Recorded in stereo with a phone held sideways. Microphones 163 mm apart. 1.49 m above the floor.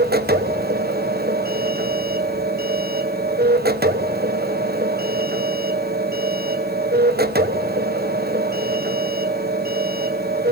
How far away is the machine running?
About 1.1 m.